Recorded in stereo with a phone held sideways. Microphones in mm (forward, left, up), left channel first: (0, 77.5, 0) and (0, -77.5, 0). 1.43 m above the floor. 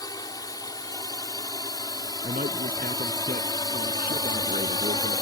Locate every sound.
0.0 s a drone: 25° left (ahead or behind)
2.2 s a man speaking: 75° right (ahead or behind)